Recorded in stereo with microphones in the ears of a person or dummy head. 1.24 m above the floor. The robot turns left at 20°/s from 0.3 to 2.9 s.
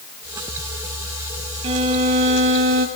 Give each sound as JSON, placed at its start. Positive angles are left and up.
{"t": 1.6, "sound": "a violin", "side_deg": -40, "distance_m": 1.5}